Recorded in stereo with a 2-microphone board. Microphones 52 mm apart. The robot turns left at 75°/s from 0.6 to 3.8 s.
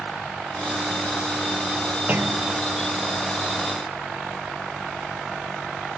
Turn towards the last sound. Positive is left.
turn(degrees=-160)